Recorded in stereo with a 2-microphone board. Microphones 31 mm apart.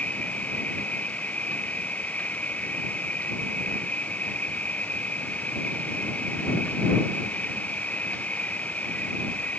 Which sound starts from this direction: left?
An insect, at 0.0 s.